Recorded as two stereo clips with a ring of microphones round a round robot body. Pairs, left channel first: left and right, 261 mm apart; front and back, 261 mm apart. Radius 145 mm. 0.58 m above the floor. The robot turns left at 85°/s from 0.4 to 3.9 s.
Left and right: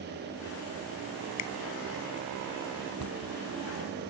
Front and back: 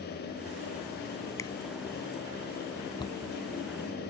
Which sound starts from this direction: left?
A finger snap, at 1.4 s.